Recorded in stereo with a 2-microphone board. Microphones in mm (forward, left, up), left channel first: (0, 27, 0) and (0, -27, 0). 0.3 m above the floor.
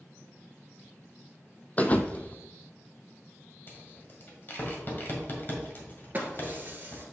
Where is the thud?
30° left (ahead or behind), 0.6 m.